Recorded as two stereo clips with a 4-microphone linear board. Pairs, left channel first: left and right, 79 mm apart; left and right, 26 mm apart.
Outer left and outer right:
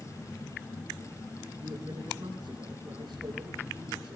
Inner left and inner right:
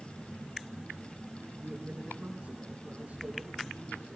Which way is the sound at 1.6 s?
70° right (ahead or behind).